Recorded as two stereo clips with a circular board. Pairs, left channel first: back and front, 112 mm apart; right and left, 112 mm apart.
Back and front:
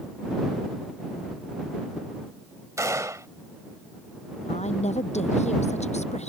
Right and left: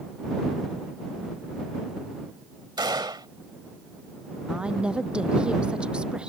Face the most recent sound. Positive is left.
turn(degrees=170)